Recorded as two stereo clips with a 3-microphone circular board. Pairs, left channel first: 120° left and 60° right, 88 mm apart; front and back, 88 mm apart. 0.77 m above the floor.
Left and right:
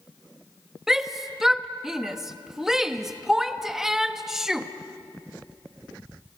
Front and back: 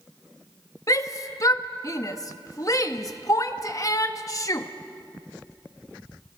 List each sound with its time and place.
0.9 s a shout: 20° left, 1.2 m